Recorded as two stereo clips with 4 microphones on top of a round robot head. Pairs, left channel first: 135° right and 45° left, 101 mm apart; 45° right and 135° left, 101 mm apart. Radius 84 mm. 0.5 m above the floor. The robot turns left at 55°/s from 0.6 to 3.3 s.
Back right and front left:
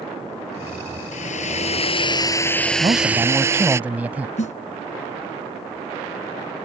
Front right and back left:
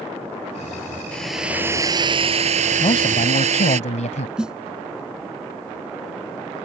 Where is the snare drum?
145° right.